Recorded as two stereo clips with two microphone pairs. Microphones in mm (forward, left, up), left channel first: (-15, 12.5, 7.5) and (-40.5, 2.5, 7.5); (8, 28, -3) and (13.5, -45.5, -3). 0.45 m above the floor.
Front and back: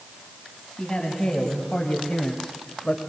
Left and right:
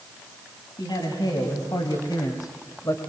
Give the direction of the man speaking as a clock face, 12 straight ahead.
9 o'clock.